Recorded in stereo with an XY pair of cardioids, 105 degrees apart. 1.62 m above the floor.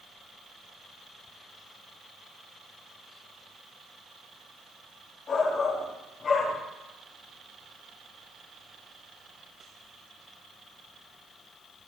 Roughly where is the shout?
Ahead left.